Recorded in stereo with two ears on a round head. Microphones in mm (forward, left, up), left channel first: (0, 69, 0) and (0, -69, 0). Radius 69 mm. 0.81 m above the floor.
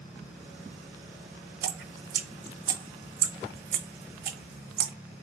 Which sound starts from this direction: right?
Dripping, at 1.6 s.